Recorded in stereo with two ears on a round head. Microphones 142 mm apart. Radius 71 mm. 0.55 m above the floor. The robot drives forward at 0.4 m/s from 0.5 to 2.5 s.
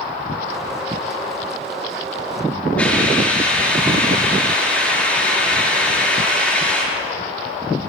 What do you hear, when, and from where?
2.8 s a hiss: 5° left (ahead or behind), 8.5 m